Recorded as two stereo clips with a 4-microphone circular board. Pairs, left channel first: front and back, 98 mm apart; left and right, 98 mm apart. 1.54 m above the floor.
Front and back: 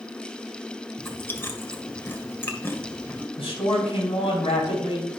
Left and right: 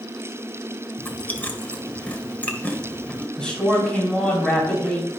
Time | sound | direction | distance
1.0 | chewing | 35° left | 1.4 m
3.4 | a man speaking | 10° left | 5 m